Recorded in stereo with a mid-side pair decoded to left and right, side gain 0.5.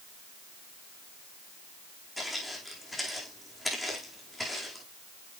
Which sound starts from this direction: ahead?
Footsteps, at 2.2 s.